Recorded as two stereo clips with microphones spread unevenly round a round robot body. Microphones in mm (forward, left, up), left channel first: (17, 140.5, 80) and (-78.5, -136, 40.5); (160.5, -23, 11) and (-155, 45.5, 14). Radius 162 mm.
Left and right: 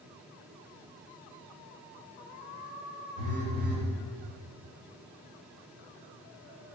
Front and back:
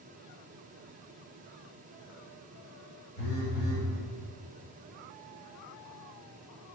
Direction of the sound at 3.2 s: 45° left.